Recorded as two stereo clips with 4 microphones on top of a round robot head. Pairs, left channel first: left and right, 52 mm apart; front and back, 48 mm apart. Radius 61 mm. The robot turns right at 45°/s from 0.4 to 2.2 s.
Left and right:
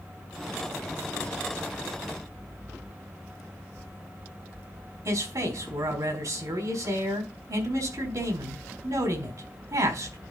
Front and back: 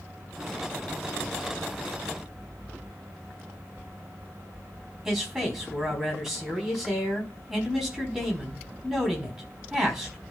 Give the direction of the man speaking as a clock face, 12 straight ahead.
3 o'clock.